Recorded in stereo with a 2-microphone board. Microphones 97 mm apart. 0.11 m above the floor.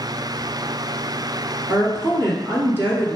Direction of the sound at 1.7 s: 20° right (ahead or behind).